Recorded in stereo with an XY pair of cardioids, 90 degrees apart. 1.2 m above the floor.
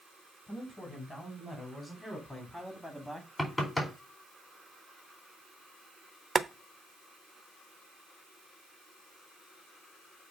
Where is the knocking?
15° left, 4 m.